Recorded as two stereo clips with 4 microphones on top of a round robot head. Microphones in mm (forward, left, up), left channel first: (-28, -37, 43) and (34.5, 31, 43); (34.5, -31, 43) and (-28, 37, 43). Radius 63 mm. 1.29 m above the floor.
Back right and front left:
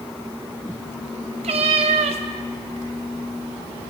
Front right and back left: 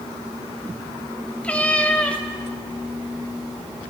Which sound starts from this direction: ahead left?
A cat meowing, at 1.4 s.